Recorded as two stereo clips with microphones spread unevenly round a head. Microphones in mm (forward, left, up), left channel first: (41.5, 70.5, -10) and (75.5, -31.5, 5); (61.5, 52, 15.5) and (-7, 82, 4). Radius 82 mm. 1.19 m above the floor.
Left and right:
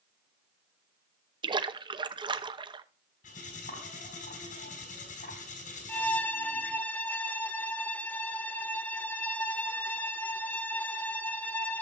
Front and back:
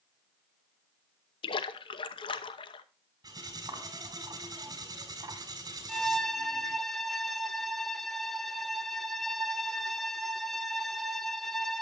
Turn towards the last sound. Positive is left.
turn(degrees=35)